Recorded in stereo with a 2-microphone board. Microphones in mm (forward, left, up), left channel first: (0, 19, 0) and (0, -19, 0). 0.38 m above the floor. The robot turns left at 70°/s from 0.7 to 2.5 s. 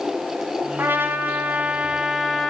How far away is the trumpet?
About 4 m.